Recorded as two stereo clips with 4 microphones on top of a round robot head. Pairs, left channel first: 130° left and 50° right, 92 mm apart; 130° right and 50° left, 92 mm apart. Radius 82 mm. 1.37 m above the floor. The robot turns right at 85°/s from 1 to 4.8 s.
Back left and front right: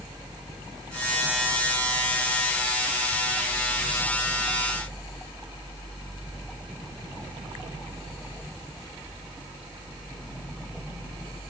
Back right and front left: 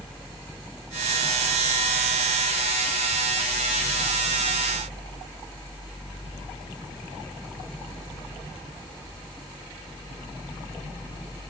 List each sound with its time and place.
Only background noise.